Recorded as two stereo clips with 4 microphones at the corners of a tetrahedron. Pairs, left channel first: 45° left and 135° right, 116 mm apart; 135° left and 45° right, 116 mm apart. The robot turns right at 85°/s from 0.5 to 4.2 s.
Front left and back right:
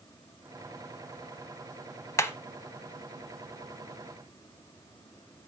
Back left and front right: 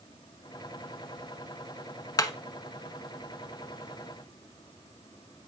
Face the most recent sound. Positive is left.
turn(degrees=-90)